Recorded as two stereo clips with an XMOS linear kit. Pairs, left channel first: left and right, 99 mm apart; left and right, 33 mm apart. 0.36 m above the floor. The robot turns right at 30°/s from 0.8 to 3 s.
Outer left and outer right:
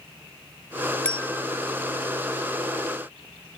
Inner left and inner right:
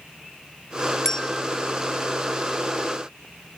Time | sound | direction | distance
1.1 | a bell | 10° left (ahead or behind) | ?